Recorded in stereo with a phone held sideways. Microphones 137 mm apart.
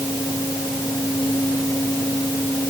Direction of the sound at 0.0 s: 25° left (ahead or behind).